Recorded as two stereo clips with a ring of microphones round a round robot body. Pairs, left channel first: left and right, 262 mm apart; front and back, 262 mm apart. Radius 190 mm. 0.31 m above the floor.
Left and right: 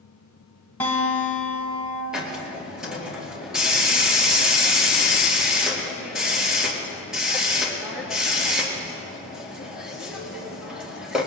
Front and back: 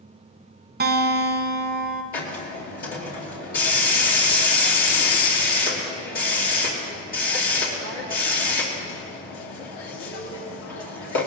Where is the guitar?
170° left, 1.4 m.